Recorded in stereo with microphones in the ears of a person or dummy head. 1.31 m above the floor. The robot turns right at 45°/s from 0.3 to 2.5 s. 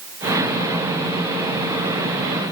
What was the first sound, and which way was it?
Only background noise.